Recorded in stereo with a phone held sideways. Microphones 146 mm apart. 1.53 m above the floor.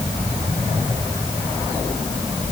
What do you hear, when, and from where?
Only background noise.